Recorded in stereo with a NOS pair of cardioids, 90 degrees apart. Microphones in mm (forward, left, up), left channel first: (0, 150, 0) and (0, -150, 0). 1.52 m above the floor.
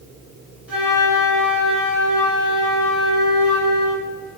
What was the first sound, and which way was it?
A flute, 5° right.